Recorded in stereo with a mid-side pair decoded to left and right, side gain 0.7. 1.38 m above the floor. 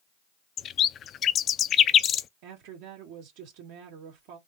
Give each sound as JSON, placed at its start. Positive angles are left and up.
{"t": 0.6, "sound": "a bird", "azimuth_deg": 40, "distance_m": 0.5}
{"t": 2.4, "sound": "a woman speaking", "azimuth_deg": -70, "distance_m": 2.5}